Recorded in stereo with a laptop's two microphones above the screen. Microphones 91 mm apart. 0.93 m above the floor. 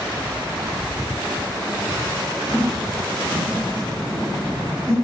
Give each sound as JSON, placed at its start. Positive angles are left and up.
{"t": 2.5, "sound": "laughter", "side_deg": -10, "distance_m": 8.0}